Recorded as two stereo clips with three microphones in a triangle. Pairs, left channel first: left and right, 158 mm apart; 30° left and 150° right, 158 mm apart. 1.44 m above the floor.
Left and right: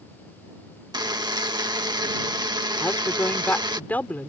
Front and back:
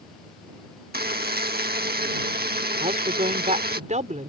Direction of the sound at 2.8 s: 170° left.